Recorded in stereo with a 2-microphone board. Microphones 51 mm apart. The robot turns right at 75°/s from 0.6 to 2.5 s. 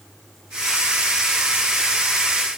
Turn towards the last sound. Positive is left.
No sound to turn to.